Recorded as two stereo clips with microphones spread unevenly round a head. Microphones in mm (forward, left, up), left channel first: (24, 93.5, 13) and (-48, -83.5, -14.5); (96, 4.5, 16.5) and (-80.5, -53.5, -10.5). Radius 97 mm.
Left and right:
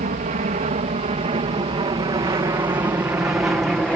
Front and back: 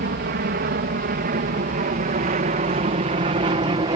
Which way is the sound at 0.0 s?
150° right.